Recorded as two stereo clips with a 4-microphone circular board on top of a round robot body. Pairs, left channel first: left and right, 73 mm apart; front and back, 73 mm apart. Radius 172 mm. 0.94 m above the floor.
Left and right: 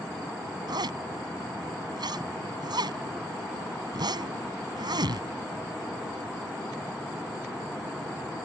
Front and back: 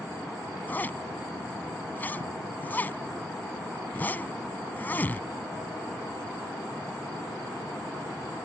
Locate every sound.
0.7 s a zipper: 65° right